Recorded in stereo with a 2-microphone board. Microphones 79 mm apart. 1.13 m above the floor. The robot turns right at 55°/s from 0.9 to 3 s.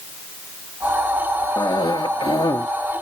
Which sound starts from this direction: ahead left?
A cough, at 1.6 s.